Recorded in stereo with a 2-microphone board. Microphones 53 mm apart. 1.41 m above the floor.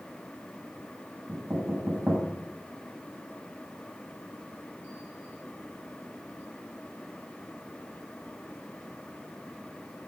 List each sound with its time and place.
1.3 s knocking: 35° right (ahead or behind), 5.5 m